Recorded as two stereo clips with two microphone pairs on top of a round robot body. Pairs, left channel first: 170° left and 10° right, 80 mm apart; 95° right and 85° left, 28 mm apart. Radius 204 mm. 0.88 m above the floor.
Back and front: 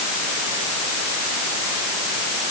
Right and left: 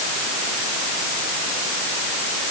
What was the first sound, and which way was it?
Only background noise.